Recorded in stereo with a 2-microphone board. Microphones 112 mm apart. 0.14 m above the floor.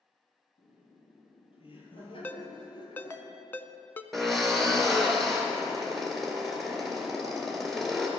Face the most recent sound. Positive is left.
turn(degrees=0)  # may be behind; listen again after turning